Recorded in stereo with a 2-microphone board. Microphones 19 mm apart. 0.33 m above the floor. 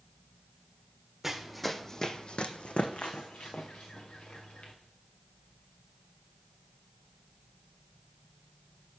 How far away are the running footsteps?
About 0.9 m.